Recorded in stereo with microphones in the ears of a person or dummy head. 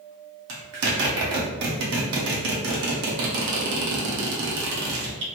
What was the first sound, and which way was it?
A zipper, 70° right (ahead or behind).